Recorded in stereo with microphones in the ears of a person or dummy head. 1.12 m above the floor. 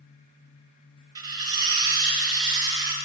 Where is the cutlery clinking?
30° right (ahead or behind), 1.1 m.